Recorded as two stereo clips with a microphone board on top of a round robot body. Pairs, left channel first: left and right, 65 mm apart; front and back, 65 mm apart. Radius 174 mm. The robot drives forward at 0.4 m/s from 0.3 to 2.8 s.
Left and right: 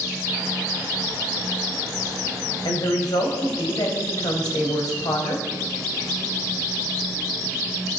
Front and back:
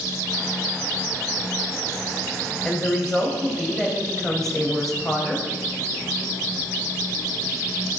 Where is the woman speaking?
85° left, 3.5 m.